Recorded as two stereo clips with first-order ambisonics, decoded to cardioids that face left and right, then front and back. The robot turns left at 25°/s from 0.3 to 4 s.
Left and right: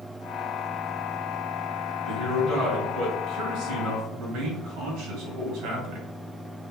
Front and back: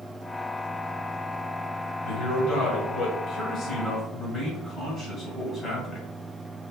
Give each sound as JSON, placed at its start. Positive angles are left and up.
{"t": 2.0, "sound": "a man speaking", "azimuth_deg": -25, "distance_m": 2.5}